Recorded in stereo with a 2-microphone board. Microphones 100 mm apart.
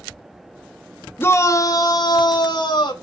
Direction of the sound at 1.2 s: 20° left (ahead or behind).